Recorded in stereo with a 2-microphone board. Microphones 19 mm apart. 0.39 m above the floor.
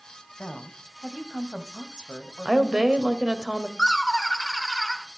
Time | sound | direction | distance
0.4 | a woman speaking | 50° left (ahead or behind) | 1.9 m
2.5 | a woman speaking | 45° right (ahead or behind) | 1.9 m
3.8 | laughter | 10° left (ahead or behind) | 0.9 m